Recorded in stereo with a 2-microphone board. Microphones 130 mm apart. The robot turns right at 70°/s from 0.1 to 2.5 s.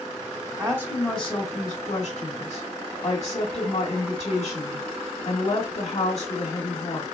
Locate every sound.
0.6 s a woman speaking: 35° right, 1.4 m; by 7.0 s 100° left, 1.4 m